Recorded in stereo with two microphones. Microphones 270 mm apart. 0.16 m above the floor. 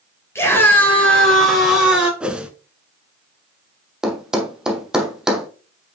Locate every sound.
0.3 s a scream: 10° left (ahead or behind), 4 m; by 2.1 s 5° right (ahead or behind), 4 m
2.2 s a whoosh: 5° right (ahead or behind), 0.9 m
4.0 s a thud: centre (ahead or behind), 1.3 m